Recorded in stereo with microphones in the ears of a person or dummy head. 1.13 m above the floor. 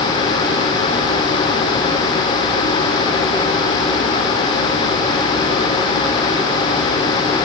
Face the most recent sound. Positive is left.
No sound to turn to.